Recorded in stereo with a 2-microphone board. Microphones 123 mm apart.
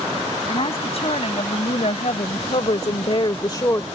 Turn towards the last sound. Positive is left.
turn(degrees=25)  # may be behind; listen again after turning